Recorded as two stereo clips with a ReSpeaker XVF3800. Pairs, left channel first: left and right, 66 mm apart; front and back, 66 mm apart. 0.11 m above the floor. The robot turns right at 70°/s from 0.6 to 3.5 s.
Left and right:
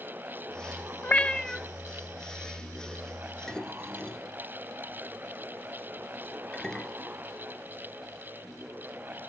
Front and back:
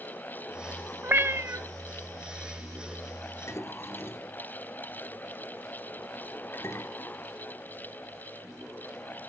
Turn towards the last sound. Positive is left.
turn(degrees=15)